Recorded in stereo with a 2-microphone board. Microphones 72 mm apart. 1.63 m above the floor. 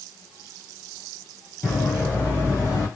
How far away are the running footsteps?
About 1.9 m.